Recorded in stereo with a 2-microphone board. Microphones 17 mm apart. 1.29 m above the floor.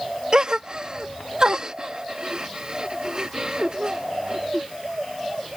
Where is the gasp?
45° right (ahead or behind).